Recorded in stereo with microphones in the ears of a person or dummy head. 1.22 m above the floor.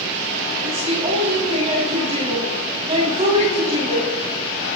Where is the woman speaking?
40° right (ahead or behind), 6.5 m.